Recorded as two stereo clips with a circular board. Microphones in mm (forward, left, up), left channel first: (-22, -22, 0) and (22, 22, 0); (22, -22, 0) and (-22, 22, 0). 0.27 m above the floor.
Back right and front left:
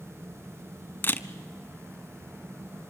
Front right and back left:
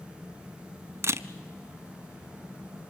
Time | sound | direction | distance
1.0 | a camera shutter | 170° left | 0.5 m